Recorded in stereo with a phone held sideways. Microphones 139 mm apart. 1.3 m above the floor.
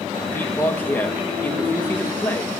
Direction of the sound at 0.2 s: 15° left (ahead or behind).